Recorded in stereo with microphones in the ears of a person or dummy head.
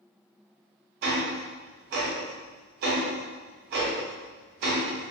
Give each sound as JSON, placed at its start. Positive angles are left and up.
{"t": 1.0, "sound": "ticking", "side_deg": -60, "distance_m": 0.7}